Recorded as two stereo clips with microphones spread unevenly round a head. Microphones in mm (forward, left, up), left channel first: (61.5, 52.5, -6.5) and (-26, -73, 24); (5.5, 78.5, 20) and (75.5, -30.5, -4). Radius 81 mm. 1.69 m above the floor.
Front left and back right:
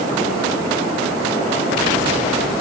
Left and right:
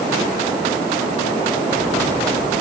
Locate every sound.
Only background noise.